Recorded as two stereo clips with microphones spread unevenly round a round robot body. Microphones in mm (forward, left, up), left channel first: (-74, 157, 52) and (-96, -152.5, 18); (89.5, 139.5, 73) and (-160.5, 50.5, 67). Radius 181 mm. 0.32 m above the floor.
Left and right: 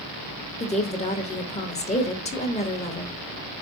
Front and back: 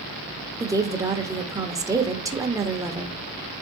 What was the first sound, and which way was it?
A woman speaking, 140° left.